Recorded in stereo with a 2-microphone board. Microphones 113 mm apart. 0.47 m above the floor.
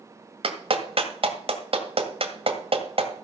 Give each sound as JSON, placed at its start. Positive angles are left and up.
{"t": 0.4, "sound": "a clap", "side_deg": -55, "distance_m": 1.8}